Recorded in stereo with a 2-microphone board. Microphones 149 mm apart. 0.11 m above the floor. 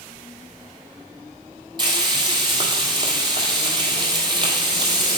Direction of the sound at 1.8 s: 30° right (ahead or behind).